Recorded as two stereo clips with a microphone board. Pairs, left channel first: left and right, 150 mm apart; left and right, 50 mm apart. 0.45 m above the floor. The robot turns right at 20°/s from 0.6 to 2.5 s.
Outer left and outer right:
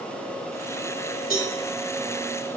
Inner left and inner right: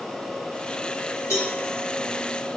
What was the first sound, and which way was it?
A cowbell, 85° left.